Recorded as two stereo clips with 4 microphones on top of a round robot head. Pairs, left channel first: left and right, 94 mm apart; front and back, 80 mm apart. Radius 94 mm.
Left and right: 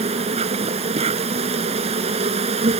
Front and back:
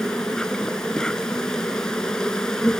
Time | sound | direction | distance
0.0 | an insect | 85° right | ?